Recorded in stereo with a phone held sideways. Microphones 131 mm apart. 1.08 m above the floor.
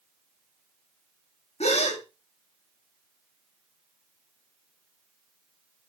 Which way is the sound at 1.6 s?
55° left (ahead or behind).